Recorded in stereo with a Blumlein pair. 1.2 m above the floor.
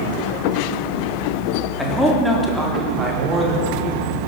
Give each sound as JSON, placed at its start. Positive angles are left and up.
{"t": 1.8, "sound": "a man speaking", "azimuth_deg": 0, "distance_m": 3.5}